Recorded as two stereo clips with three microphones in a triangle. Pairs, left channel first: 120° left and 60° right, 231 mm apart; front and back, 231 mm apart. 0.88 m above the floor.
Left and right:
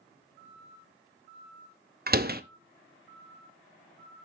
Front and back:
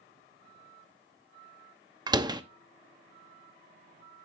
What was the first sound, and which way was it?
A door slam, 110° right.